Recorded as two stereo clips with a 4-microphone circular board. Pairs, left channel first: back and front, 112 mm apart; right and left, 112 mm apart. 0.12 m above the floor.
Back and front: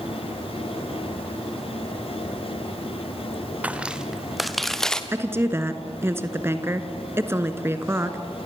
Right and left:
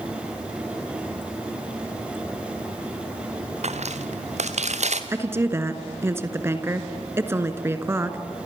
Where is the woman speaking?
45° left, 1.5 m.